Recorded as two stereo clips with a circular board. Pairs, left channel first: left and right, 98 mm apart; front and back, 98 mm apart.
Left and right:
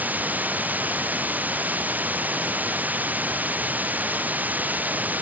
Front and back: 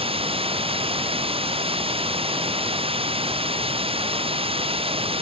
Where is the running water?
165° right.